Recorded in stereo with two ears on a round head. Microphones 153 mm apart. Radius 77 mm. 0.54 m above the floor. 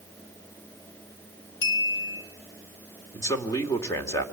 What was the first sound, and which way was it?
A clink, 70° left (ahead or behind).